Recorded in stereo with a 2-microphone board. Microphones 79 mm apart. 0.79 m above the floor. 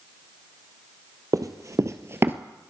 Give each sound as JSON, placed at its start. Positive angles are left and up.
{"t": 1.3, "sound": "running footsteps", "side_deg": -50, "distance_m": 1.1}